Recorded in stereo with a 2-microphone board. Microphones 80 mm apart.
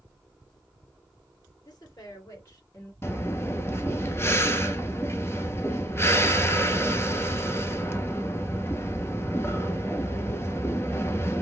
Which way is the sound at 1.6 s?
50° left (ahead or behind).